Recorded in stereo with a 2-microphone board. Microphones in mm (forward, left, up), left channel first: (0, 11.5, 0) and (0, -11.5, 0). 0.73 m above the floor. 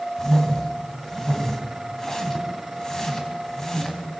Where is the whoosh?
25° left (ahead or behind), 3 m.